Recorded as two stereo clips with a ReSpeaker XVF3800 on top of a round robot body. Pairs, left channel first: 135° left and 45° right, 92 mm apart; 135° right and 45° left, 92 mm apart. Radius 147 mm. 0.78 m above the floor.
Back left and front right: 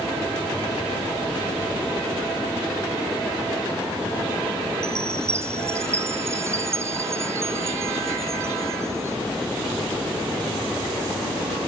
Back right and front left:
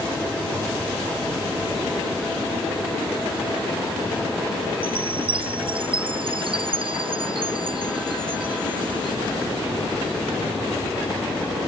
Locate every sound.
4.8 s a chime: 15° left